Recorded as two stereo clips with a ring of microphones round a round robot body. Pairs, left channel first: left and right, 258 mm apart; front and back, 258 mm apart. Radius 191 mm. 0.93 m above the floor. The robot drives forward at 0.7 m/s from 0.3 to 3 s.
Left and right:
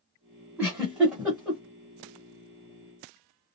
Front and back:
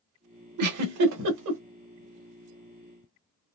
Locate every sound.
0.6 s a giggle: 175° right, 0.8 m; by 1.6 s straight behind, 1.4 m